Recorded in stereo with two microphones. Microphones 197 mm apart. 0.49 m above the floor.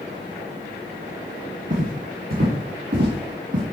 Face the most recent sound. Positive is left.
turn(degrees=-70)  # may be behind; listen again after turning